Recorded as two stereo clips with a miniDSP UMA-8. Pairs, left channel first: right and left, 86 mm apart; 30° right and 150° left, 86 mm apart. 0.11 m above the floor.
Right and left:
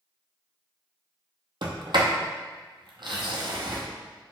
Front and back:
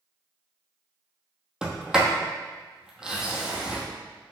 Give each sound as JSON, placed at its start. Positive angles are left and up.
{"t": 1.6, "sound": "a sliding door", "azimuth_deg": 70, "distance_m": 1.0}